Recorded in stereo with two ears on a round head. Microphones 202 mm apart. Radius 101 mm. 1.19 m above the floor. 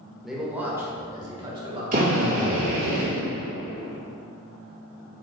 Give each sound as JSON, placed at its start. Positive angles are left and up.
{"t": 0.2, "sound": "a man speaking", "side_deg": 0, "distance_m": 1.4}
{"t": 1.9, "sound": "a drill", "side_deg": -40, "distance_m": 2.0}